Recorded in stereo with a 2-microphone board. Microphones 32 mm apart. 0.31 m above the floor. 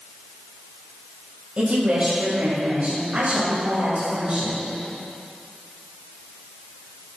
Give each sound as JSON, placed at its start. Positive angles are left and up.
{"t": 1.6, "sound": "a woman speaking", "side_deg": -40, "distance_m": 1.9}